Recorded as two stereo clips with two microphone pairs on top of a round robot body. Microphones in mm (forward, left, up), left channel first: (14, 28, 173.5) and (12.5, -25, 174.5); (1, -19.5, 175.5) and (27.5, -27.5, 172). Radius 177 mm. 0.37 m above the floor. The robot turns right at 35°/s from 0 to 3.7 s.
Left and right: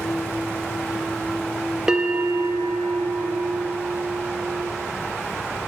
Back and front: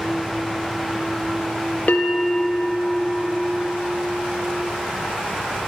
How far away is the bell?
About 0.6 m.